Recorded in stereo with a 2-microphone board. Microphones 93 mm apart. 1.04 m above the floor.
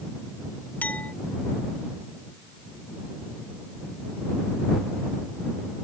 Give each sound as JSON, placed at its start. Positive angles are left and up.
{"t": 0.8, "sound": "a clink", "side_deg": 20}